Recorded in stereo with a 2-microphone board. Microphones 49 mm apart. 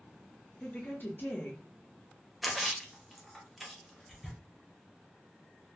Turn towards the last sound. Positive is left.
turn(degrees=0)  # may be behind; listen again after turning